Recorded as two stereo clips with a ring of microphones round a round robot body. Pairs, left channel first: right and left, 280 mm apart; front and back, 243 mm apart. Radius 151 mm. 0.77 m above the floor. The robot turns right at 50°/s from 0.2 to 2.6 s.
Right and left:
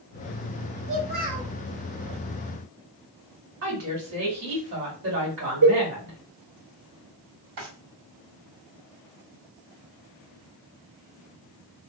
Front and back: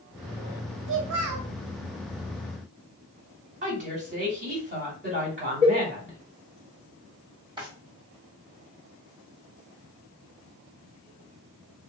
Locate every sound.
0.9 s a child speaking: 135° left, 1.0 m; by 1.5 s 165° left, 1.0 m
3.6 s a woman speaking: 130° left, 2 m
5.6 s a cowbell: 105° left, 1.5 m
7.6 s a drawer: 110° left, 1.5 m